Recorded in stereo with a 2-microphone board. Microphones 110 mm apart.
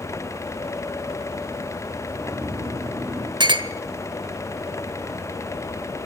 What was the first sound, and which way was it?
Snoring, 25° right (ahead or behind).